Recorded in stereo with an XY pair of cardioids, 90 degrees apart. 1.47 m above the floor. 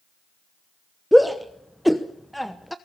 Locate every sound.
1.1 s a shout: straight ahead, 1.0 m